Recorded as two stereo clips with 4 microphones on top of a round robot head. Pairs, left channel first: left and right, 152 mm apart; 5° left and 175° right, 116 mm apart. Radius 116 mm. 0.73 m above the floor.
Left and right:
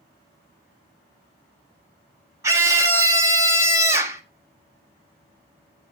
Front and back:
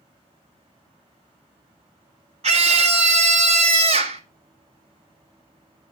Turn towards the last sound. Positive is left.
turn(degrees=-160)